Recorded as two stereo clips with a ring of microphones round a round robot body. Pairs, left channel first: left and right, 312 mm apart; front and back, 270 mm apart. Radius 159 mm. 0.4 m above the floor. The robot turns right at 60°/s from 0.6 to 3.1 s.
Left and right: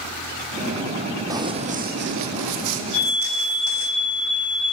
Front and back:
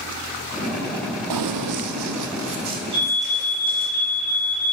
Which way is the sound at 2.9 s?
135° left.